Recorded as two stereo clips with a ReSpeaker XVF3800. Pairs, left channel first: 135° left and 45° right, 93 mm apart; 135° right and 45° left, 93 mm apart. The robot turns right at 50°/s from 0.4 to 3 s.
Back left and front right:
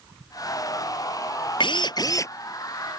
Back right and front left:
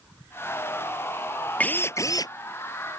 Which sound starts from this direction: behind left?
A drill, at 1.6 s.